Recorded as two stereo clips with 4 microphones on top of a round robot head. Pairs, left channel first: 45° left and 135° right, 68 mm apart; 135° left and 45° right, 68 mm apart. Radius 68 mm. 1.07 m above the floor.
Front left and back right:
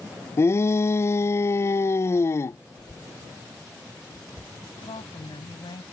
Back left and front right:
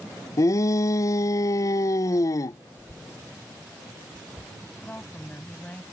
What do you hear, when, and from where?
0.4 s a shout: 95° left
2.7 s a cough: 70° left
4.8 s a woman speaking: 60° left